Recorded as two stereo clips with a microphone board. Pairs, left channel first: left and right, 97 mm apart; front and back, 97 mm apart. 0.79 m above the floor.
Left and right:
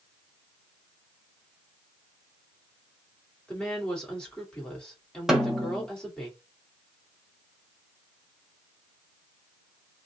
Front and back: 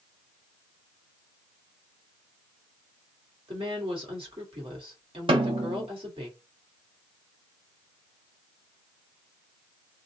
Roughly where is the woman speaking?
Behind.